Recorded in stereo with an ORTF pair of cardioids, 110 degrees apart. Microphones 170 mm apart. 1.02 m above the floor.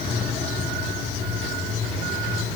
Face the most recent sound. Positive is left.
No sound to turn to.